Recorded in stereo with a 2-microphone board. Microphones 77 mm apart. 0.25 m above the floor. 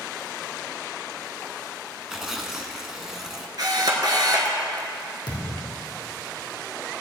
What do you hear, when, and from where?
2.1 s tearing paper: 5° right (ahead or behind), 0.9 m
3.6 s a camera shutter: 60° right (ahead or behind), 1.3 m
5.3 s a thud: 65° left (ahead or behind), 2.5 m